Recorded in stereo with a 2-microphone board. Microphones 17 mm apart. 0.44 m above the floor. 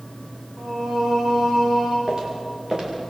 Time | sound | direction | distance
0.6 | singing | 50° right (ahead or behind) | 6.5 m
2.1 | footsteps | 45° right (ahead or behind) | 7 m